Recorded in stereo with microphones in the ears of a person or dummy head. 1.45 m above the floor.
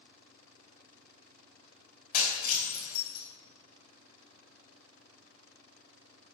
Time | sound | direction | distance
2.1 | breaking glass | 55° left (ahead or behind) | 4.5 m